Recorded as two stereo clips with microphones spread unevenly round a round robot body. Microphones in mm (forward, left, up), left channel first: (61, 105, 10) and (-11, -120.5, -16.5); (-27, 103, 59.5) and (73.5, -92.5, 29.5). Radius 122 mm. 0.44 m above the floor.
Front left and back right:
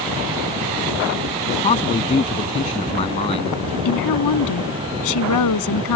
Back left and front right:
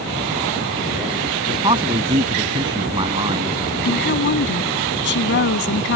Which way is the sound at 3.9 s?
80° left.